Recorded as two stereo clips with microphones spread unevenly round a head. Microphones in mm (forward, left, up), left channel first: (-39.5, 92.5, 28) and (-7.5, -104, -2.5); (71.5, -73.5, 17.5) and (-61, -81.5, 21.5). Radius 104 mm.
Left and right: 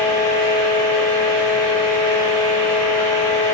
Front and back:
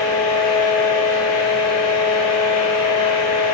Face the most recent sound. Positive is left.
turn(degrees=80)